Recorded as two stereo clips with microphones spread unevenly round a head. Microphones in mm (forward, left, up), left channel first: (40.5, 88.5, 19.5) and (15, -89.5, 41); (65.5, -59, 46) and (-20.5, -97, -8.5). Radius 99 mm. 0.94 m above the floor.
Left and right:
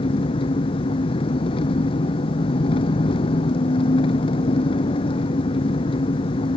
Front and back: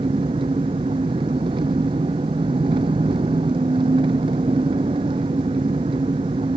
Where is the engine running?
150° left.